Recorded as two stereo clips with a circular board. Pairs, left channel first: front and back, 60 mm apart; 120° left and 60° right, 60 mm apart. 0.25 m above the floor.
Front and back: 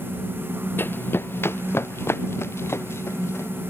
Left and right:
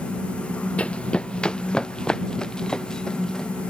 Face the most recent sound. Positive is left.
turn(degrees=40)